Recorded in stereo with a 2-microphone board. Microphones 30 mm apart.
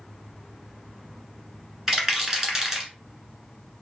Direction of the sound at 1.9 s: 15° right (ahead or behind).